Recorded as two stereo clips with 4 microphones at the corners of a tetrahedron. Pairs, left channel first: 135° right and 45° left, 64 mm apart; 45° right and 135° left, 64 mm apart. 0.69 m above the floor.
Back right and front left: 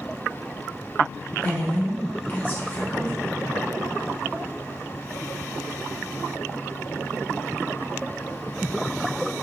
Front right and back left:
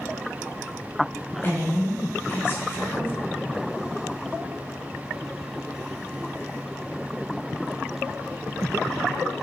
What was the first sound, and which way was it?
A woman speaking, 85° right.